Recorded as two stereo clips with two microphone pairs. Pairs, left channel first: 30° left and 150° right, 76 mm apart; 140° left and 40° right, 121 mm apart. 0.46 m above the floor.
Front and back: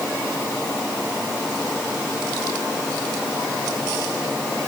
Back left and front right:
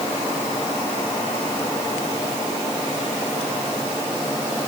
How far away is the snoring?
No snoring in this recording.